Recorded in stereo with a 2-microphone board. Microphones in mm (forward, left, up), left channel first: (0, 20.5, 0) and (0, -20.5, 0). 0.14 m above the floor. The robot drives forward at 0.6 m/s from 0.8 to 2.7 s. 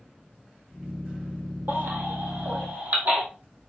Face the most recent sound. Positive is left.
turn(degrees=-50)  # may be behind; listen again after turning